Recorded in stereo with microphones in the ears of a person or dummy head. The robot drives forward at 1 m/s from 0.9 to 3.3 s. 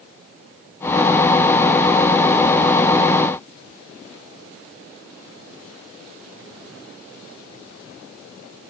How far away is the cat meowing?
No cat meowing in this recording.